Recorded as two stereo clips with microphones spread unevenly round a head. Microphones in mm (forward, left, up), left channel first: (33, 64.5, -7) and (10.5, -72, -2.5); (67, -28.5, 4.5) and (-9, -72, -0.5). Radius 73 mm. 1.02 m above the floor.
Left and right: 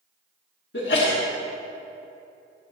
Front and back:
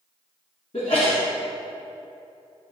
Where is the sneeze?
85° left, 1.6 m.